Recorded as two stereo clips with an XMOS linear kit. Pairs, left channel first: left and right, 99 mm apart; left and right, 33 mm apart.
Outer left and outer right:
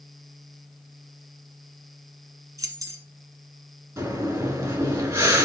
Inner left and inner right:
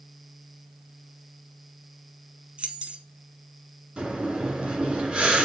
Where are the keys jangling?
40° right (ahead or behind), 1.2 m.